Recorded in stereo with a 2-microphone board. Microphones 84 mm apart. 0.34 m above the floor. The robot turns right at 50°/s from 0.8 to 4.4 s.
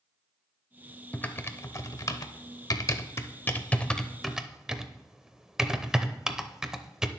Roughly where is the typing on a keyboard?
Centre.